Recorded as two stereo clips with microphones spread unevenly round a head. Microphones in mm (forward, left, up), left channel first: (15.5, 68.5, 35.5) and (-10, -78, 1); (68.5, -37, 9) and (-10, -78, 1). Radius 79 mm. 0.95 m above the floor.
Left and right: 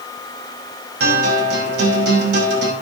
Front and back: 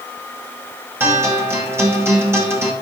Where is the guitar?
90° right, 5.5 m.